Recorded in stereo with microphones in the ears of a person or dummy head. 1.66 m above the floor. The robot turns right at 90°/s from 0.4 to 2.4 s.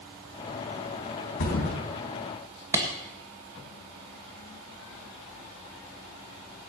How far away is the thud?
About 3.5 m.